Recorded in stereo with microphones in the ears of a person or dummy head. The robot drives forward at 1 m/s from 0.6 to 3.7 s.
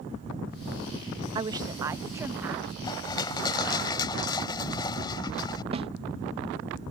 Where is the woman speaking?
25° right (ahead or behind); by 2.7 s 10° right (ahead or behind).